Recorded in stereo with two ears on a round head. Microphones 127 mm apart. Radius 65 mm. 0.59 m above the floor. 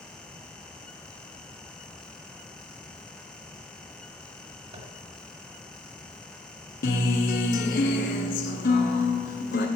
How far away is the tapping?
About 2.0 m.